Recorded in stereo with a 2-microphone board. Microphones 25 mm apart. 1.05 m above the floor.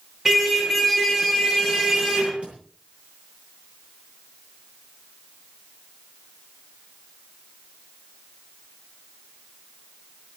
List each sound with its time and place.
0.2 s a car horn: 15° right (ahead or behind), 8 m; by 2.3 s 30° right (ahead or behind), 8.5 m
2.4 s a thud: 55° right (ahead or behind), 9 m